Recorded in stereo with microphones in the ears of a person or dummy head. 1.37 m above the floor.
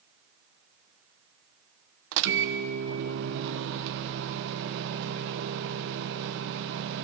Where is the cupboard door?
I don't hear a cupboard door.